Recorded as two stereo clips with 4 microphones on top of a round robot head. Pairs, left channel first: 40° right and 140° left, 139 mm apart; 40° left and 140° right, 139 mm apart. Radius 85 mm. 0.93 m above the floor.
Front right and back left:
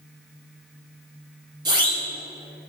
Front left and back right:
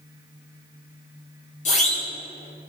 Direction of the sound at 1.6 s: 80° left.